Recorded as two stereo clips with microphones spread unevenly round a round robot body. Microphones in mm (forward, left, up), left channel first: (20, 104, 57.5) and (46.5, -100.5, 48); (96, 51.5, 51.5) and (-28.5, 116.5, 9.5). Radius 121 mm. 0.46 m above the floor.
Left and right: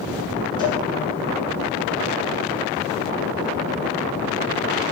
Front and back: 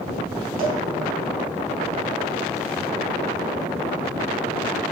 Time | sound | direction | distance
0.6 | a cowbell | 25° left | 5.5 m